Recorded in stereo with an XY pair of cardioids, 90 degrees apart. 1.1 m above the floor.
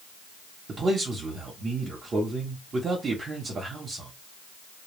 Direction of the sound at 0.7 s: 55° right.